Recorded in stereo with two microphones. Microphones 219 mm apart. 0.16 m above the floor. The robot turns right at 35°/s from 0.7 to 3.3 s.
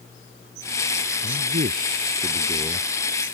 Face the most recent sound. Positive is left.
turn(degrees=10)